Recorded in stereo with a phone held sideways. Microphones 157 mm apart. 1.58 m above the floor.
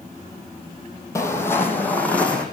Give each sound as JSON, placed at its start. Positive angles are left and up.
{"t": 1.1, "sound": "footsteps", "side_deg": 20, "distance_m": 3.0}